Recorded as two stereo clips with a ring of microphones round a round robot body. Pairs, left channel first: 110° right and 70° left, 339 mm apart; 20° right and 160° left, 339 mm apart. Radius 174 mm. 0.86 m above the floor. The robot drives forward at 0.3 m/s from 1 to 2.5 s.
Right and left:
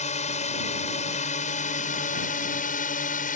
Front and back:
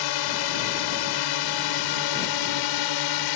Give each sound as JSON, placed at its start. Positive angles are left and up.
{"t": 0.0, "sound": "a drone", "azimuth_deg": -40}